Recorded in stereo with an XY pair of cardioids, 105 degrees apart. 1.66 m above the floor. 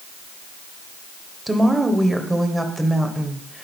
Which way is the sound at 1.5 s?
15° right.